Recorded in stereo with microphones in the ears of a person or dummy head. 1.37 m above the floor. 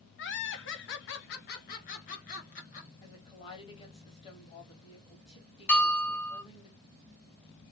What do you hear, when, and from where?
0.2 s laughter: 55° left (ahead or behind), 0.7 m; by 2.9 s 40° left (ahead or behind), 1.7 m
3.0 s a woman speaking: 30° left (ahead or behind), 1.1 m
5.7 s a bell: 10° left (ahead or behind), 0.5 m